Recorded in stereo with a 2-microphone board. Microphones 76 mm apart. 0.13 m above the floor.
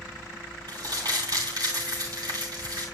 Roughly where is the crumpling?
Right.